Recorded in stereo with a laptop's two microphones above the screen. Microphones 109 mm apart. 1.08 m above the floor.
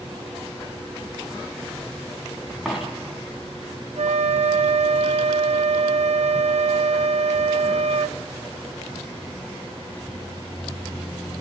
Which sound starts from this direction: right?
A flute, at 4.0 s.